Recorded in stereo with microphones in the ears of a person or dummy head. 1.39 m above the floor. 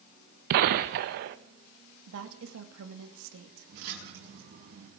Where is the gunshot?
50° right (ahead or behind), 0.8 m.